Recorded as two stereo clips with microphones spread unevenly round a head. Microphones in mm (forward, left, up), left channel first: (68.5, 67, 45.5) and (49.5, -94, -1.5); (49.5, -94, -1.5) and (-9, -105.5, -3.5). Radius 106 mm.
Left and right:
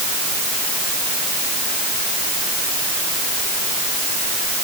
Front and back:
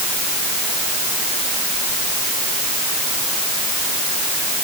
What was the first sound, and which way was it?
Only background noise.